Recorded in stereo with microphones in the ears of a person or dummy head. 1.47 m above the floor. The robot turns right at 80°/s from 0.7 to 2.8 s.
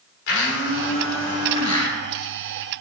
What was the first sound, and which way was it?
A blender, 70° left.